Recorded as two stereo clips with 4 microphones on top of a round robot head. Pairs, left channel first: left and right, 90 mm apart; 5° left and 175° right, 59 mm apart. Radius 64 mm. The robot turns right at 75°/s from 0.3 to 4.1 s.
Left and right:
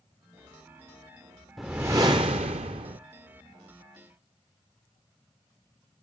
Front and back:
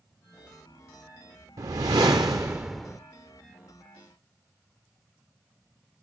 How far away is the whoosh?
About 0.5 m.